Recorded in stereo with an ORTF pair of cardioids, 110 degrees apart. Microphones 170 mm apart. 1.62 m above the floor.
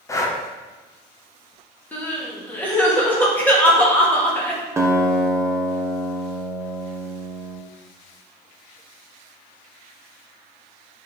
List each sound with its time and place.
0.1 s breathing: 15° left, 1.1 m
1.9 s crying: 10° left, 2.0 m
4.8 s a guitar: 15° right, 1.1 m